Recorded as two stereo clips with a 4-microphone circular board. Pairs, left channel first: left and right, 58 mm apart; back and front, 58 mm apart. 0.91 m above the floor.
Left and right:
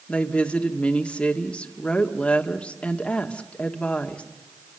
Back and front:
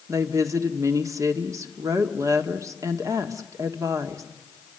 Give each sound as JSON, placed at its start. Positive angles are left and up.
{"t": 0.1, "sound": "a woman speaking", "azimuth_deg": 20, "distance_m": 1.6}